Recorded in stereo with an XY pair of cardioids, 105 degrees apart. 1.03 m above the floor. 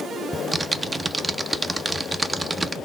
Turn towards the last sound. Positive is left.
turn(degrees=-20)